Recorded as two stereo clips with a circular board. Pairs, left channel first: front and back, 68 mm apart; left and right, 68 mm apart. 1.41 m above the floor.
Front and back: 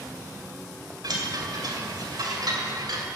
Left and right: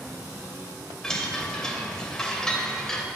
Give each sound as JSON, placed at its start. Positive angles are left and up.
{"t": 1.0, "sound": "a chime", "azimuth_deg": 170, "distance_m": 2.5}